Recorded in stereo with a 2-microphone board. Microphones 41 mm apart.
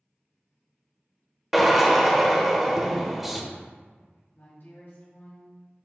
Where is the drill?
5° right (ahead or behind), 1.0 m.